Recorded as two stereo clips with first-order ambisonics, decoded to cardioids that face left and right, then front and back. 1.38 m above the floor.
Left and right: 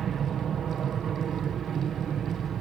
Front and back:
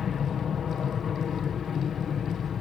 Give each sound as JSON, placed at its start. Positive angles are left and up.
{"t": 0.0, "sound": "an aircraft", "azimuth_deg": -45}